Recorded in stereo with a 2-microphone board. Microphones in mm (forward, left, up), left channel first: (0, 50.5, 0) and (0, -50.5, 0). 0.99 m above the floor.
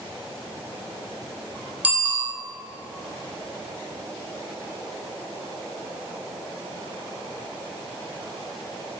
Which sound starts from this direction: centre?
A bicycle bell, at 1.8 s.